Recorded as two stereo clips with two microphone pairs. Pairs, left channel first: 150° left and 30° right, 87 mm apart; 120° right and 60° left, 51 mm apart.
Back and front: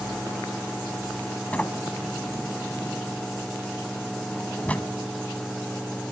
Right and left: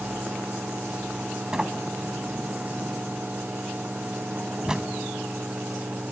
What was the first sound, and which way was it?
A sliding door, 110° left.